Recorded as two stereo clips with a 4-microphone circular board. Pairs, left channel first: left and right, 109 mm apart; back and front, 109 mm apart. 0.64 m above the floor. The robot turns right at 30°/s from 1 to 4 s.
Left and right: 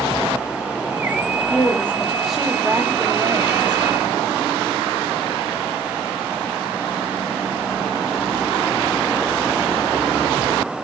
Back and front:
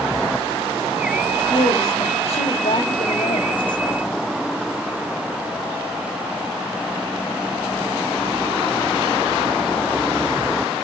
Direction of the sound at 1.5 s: 160° left.